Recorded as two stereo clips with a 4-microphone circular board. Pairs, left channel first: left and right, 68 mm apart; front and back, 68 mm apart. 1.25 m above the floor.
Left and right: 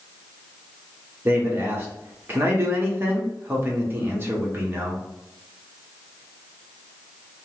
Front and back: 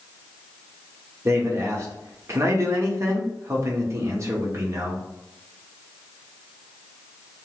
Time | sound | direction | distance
1.2 | a man speaking | 140° right | 1.0 m